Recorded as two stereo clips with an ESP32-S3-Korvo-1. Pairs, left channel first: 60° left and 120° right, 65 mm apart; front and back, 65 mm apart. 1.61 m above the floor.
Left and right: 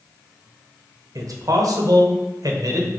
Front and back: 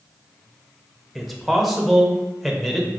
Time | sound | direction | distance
1.1 | a man speaking | 90° right | 1.2 m